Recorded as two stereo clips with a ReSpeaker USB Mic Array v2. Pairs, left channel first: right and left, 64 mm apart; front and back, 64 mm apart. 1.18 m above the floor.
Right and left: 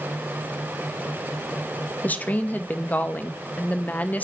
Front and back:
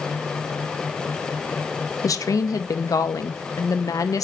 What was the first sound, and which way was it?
A woman speaking, 25° right.